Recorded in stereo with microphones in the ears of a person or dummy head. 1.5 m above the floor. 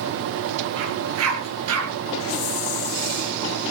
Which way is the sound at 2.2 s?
75° left (ahead or behind).